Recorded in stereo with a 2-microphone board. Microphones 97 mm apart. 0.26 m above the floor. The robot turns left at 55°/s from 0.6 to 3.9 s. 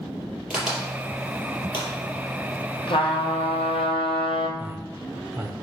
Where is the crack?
10° right (ahead or behind), 4 m; by 1.9 s 60° left (ahead or behind), 4 m.